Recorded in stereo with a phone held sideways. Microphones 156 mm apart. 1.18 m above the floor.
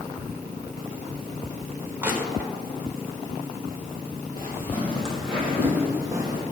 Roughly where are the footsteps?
Left.